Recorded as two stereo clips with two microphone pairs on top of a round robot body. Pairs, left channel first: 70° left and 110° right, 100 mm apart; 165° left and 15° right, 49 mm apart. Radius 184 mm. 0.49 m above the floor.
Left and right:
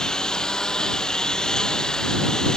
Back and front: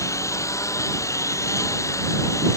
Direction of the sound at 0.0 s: 150° left.